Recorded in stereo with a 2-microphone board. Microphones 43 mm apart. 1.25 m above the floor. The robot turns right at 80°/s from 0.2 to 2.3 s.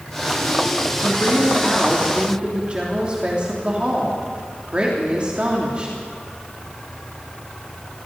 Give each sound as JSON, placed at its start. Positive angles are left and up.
{"t": 1.0, "sound": "a woman speaking", "azimuth_deg": 105, "distance_m": 3.0}